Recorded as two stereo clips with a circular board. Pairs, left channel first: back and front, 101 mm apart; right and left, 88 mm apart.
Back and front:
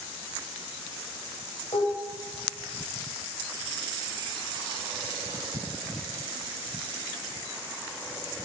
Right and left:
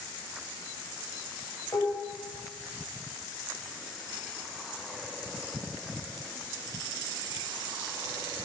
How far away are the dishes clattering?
About 9 m.